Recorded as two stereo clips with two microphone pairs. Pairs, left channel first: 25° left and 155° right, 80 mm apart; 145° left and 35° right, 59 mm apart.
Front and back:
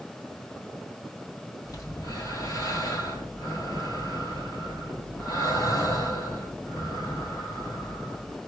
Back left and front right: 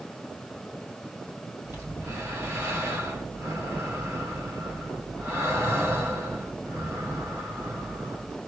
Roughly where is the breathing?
Ahead.